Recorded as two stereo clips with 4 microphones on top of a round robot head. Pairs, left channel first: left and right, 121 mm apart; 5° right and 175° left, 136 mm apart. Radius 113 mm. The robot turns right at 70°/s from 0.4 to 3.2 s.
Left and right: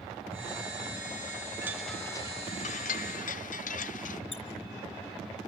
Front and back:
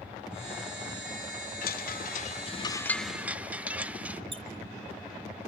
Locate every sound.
1.6 s a chime: 15° right, 0.6 m; by 4.2 s 95° left, 0.6 m
4.3 s a squeak: 125° left, 2.5 m